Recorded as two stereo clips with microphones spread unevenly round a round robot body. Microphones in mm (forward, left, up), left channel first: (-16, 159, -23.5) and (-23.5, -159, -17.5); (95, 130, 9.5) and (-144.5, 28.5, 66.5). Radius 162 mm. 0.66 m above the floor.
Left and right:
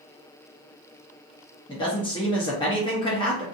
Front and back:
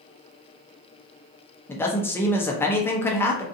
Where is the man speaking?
45° left, 0.6 m.